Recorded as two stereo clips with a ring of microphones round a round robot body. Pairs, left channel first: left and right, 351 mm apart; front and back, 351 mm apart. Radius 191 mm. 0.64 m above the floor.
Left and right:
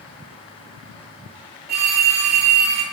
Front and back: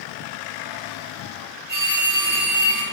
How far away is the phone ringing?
About 2 m.